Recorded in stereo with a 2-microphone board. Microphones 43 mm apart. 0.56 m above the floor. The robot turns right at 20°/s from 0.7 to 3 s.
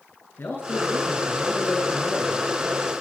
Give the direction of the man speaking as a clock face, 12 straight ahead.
8 o'clock.